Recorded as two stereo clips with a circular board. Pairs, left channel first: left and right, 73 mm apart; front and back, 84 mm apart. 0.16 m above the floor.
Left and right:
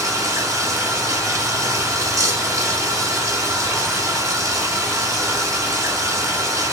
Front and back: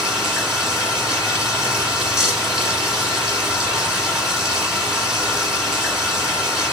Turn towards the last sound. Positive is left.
turn(degrees=-95)